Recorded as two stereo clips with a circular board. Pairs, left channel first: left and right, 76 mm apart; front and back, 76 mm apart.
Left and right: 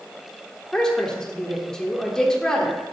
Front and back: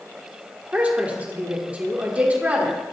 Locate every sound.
0.7 s a woman speaking: 155° left, 1.0 m